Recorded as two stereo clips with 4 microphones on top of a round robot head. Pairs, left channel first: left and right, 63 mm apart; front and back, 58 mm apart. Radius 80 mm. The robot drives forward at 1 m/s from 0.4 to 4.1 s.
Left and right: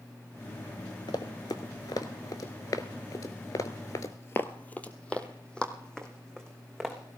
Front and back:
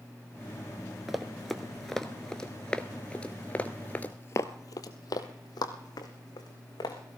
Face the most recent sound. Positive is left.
turn(degrees=5)